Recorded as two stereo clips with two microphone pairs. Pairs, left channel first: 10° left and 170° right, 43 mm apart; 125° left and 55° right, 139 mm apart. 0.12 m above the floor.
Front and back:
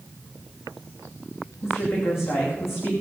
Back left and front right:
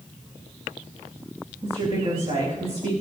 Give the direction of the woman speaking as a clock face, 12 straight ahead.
12 o'clock.